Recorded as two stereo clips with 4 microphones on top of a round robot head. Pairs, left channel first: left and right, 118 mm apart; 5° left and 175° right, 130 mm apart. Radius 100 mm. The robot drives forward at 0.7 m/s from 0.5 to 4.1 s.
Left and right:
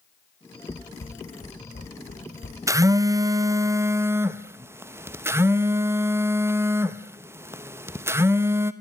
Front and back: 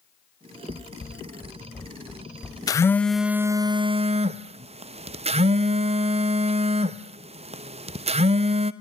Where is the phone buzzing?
40° right, 0.8 m; by 8.7 s 155° right, 1.0 m.